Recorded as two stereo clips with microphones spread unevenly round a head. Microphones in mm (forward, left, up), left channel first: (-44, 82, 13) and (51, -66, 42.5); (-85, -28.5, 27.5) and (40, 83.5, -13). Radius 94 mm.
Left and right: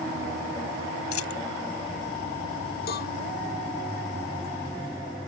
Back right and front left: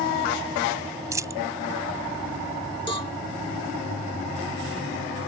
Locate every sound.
1.1 s a dropped coin: 115° left
2.9 s a cowbell: 160° left